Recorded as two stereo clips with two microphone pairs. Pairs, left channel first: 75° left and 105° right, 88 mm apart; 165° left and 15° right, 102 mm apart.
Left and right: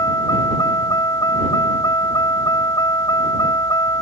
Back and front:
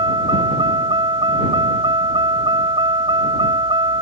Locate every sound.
0.0 s a vehicle: 25° left